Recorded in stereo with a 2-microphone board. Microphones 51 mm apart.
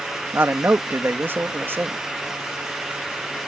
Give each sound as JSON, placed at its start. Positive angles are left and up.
{"t": 0.3, "sound": "a man speaking", "side_deg": -45}